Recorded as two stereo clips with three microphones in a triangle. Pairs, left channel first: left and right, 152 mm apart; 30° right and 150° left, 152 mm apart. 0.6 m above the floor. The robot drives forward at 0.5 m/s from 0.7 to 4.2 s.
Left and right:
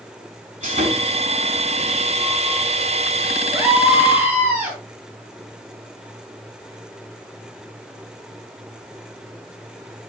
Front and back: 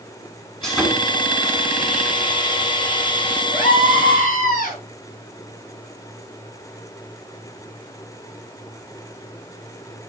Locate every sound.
0.6 s sawing: 115° right, 3 m; by 3.4 s 135° right, 4 m
3.5 s a scream: 15° right, 6 m